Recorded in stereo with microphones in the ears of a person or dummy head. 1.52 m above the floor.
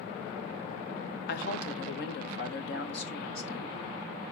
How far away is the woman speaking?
About 1.3 m.